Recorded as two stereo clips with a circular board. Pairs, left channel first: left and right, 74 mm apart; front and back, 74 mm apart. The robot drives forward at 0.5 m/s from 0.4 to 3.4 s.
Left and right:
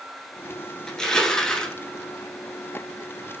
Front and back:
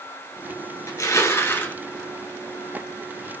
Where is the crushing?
10° left, 1.2 m; by 1.8 s 25° left, 0.9 m.